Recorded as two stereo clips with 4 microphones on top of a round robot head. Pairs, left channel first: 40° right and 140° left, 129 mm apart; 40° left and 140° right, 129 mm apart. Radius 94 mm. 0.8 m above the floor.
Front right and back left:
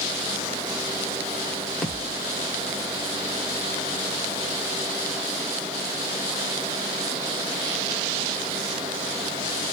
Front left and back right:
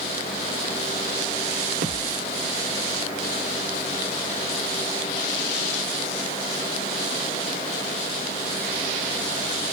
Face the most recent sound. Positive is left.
turn(degrees=-125)